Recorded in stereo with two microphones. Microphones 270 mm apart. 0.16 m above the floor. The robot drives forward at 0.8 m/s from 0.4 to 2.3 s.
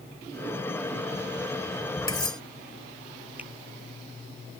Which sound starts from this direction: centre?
A finger snap, at 3.4 s.